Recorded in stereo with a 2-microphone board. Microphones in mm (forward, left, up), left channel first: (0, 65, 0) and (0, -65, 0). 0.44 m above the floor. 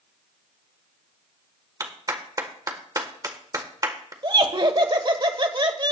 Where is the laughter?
40° right (ahead or behind), 1.3 m.